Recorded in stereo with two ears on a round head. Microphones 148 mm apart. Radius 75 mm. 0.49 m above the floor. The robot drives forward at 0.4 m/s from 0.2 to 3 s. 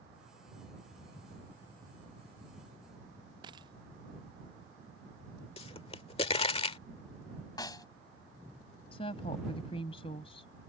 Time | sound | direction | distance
3.4 | a dropped coin | 30° right (ahead or behind) | ?
5.6 | a pop | 35° left (ahead or behind) | ?
7.6 | a snare drum | 25° left (ahead or behind) | ?
8.9 | a woman speaking | 35° left (ahead or behind) | ?